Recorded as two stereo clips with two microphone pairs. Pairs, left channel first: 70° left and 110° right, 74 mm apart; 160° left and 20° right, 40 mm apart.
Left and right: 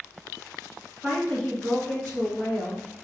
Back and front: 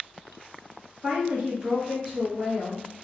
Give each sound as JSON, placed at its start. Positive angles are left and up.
{"t": 1.0, "sound": "a woman speaking", "azimuth_deg": -20, "distance_m": 1.5}